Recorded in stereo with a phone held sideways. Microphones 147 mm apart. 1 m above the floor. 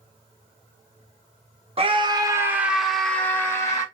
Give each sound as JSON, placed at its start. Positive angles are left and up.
{"t": 1.8, "sound": "a scream", "side_deg": -40, "distance_m": 1.4}